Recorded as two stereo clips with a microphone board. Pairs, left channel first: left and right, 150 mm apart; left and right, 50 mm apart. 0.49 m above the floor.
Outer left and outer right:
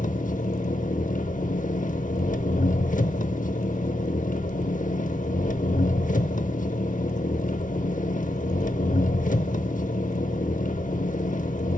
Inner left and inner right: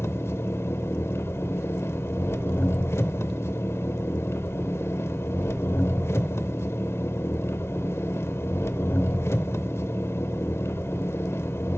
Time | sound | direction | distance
0.0 | an engine running | 60° left (ahead or behind) | 0.7 m